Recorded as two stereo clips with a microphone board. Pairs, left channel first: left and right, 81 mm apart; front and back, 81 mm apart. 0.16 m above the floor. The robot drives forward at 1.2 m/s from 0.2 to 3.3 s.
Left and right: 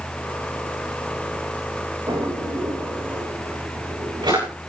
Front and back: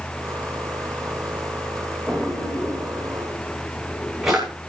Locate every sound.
2.1 s a drawer: 85° right, 10 m; by 4.5 s 95° right, 10 m